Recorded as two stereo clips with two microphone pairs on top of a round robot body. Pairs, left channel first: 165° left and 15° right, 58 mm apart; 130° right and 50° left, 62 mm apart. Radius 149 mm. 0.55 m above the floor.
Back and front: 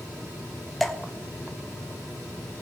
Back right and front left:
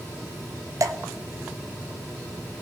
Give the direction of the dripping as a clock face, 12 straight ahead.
9 o'clock.